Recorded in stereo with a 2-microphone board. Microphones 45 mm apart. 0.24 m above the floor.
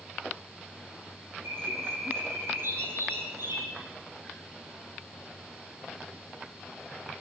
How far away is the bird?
About 8 m.